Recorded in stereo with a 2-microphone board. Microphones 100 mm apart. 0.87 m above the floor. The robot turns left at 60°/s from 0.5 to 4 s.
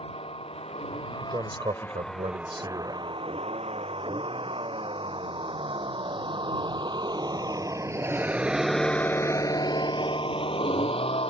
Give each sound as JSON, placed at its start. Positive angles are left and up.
{"t": 0.0, "sound": "a vehicle", "side_deg": 75}
{"t": 1.1, "sound": "a man speaking", "azimuth_deg": -30}